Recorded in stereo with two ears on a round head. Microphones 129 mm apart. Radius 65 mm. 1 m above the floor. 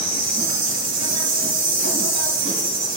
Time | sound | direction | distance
0.0 | an insect | 40° right (ahead or behind) | 3 m